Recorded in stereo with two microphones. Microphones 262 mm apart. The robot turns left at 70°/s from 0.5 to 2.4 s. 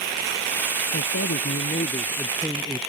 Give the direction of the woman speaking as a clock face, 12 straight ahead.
9 o'clock.